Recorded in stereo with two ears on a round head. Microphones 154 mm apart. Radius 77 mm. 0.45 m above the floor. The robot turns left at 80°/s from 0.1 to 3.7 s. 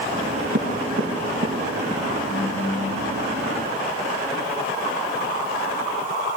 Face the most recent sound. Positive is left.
turn(degrees=60)